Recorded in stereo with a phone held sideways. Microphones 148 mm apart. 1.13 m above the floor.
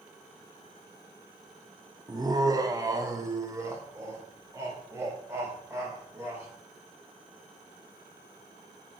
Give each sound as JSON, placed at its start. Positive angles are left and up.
{"t": 2.1, "sound": "laughter", "side_deg": -25, "distance_m": 0.6}